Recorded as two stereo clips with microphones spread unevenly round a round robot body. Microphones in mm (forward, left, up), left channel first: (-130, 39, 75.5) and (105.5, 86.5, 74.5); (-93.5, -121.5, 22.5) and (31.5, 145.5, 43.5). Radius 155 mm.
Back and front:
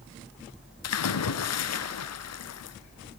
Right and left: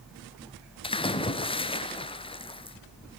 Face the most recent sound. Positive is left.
turn(degrees=170)